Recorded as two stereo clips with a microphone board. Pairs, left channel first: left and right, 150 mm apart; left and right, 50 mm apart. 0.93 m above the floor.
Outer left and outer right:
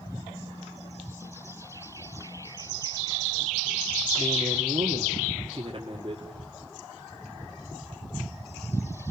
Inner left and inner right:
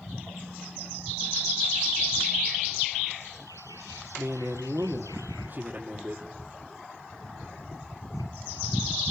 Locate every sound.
4.2 s a man speaking: 35° right (ahead or behind), 1.7 m